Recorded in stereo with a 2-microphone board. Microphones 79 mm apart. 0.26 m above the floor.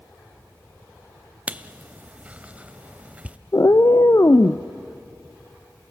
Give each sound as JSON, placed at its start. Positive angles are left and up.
{"t": 1.5, "sound": "writing", "side_deg": -15, "distance_m": 0.5}
{"t": 3.5, "sound": "a cat meowing", "side_deg": 40, "distance_m": 0.6}